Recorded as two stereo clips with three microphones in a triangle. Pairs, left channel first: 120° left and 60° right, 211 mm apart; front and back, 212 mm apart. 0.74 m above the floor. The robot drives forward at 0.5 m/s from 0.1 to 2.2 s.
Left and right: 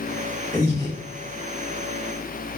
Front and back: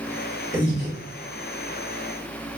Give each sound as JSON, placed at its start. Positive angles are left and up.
{"t": 0.5, "sound": "breathing", "azimuth_deg": 45, "distance_m": 1.7}